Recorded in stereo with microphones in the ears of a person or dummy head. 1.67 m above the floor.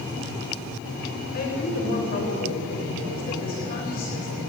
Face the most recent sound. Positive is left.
turn(degrees=45)  # may be behind; listen again after turning